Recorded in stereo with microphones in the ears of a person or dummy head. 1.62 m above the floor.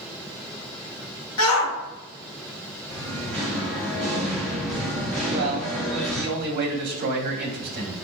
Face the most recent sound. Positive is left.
turn(degrees=-55)  # may be behind; listen again after turning